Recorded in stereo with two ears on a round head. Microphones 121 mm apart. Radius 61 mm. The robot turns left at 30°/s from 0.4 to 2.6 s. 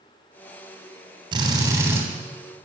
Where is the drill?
35° right (ahead or behind), 3 m; by 2.0 s 15° right (ahead or behind), 3 m.